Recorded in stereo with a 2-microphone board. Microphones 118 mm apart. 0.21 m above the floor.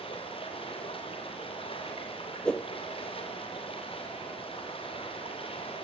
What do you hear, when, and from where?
0.0 s running water: 50° left (ahead or behind), 5.5 m
2.5 s a whoosh: 10° left (ahead or behind), 1.3 m